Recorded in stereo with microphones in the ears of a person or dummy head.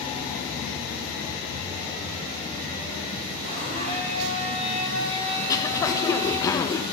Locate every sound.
3.4 s a blender: 35° right (ahead or behind), 9 m
5.4 s throat clearing: 25° left (ahead or behind), 1.2 m